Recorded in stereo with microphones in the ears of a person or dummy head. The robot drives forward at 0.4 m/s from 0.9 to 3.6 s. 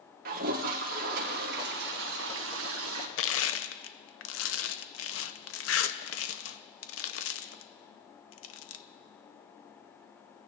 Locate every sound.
0.2 s a toilet flushing: 55° right (ahead or behind), 1.4 m; by 3.1 s 85° right, 1.2 m
3.2 s crushing: 80° left, 0.7 m